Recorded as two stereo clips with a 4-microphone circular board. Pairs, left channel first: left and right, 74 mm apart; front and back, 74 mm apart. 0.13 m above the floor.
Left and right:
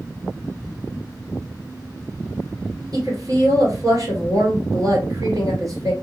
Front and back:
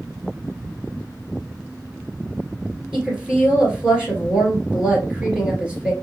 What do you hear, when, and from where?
2.9 s a woman speaking: 105° right, 2 m